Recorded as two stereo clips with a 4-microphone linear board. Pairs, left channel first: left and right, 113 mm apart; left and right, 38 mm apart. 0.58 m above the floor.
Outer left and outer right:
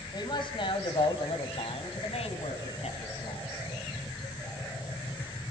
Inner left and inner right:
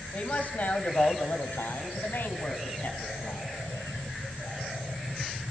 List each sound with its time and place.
0.1 s a man speaking: 45° left (ahead or behind), 3.5 m; by 3.4 s 80° left, 5 m